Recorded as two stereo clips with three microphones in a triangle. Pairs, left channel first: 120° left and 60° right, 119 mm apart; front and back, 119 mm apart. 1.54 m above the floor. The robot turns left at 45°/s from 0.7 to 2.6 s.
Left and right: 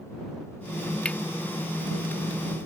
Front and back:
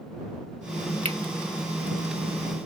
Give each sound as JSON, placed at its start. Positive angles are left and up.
{"t": 1.1, "sound": "cutlery clinking", "azimuth_deg": -160}